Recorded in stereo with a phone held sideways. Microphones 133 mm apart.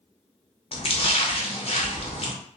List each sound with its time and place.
0.7 s a splash: 50° left (ahead or behind), 0.6 m